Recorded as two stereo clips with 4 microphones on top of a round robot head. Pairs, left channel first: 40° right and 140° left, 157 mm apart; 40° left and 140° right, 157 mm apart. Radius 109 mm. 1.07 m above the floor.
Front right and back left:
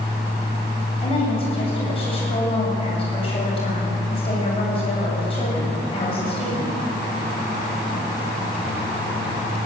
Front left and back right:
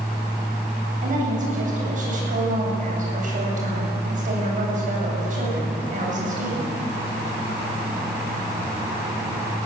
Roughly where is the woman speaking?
Right.